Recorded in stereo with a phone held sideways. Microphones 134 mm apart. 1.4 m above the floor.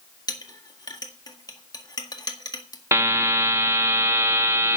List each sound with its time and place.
0.3 s a clink: 30° left (ahead or behind), 1.7 m
2.9 s a buzzer: 20° right (ahead or behind), 0.9 m